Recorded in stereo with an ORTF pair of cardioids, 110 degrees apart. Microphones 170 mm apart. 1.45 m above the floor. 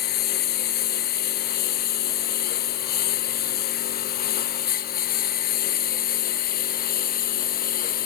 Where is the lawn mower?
70° left; by 8.1 s 60° left.